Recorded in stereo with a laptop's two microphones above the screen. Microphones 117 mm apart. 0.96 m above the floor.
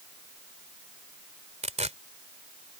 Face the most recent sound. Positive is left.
turn(degrees=-75)  # may be behind; listen again after turning